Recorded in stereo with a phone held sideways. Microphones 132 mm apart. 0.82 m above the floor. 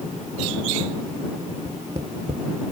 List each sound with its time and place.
1.6 s tapping: 50° right (ahead or behind)